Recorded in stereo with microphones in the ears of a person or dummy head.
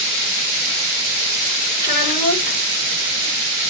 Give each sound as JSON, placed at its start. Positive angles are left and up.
{"t": 1.8, "sound": "a child speaking", "side_deg": 30, "distance_m": 1.1}